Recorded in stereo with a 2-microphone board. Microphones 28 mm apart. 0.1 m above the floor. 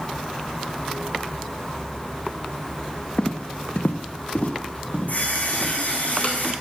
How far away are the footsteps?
About 0.9 m.